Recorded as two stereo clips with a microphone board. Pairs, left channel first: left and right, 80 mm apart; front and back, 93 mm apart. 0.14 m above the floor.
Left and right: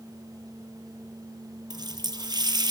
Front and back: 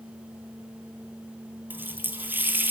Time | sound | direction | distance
1.7 | a running tap | 110° right | 2.5 m